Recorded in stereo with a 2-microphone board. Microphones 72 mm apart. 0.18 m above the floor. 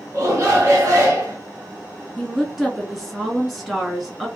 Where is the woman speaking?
Centre (ahead or behind), 1.7 m.